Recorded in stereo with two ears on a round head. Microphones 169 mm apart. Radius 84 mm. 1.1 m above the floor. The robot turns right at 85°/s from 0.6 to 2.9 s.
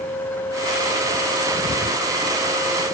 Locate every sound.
Only background noise.